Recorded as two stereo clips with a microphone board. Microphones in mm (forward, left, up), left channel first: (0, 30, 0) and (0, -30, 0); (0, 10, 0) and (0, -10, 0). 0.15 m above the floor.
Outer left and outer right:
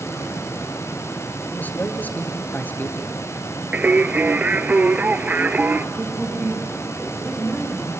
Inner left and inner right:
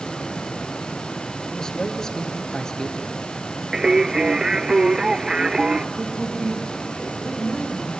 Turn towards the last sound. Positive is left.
turn(degrees=-5)  # may be behind; listen again after turning